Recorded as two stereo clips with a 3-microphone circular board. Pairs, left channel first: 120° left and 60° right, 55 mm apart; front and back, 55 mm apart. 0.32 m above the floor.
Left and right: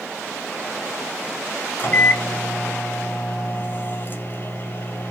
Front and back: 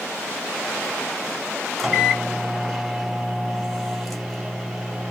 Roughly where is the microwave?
Left.